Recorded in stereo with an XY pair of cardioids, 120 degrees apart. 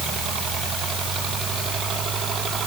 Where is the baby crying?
No baby crying in this recording.